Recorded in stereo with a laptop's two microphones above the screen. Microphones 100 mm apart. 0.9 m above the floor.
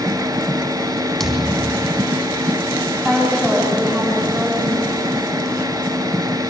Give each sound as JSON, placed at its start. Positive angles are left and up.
{"t": 0.0, "sound": "a machine running", "side_deg": -30, "distance_m": 2.5}
{"t": 1.2, "sound": "a thud", "side_deg": 5, "distance_m": 4.0}
{"t": 3.0, "sound": "a woman speaking", "side_deg": 5, "distance_m": 7.5}